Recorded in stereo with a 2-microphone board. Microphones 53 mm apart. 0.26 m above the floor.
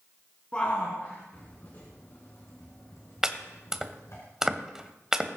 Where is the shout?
25° left (ahead or behind), 2.5 m; by 4.2 s 65° left (ahead or behind), 2.5 m.